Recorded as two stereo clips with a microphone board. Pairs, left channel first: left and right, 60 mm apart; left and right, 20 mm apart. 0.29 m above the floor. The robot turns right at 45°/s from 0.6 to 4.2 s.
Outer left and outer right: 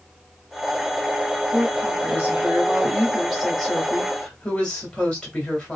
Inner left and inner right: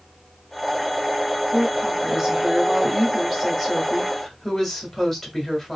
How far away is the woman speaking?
About 1.5 m.